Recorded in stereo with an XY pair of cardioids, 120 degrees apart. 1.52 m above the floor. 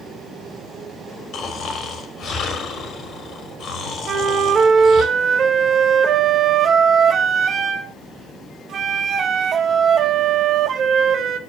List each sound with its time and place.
1.3 s snoring: 55° left, 3.5 m
4.1 s a flute: 45° right, 1.7 m